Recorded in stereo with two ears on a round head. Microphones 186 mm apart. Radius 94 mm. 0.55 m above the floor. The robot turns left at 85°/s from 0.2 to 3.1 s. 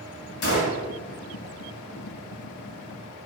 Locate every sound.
0.4 s a gunshot: 90° left, 1.2 m; by 0.8 s 55° left, 1.2 m